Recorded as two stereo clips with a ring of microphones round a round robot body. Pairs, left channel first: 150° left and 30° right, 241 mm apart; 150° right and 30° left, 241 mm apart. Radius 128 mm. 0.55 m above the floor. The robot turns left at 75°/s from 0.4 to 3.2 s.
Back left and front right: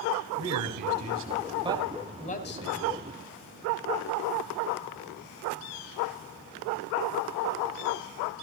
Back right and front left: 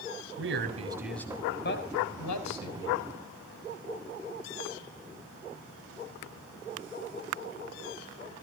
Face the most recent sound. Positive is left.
turn(degrees=145)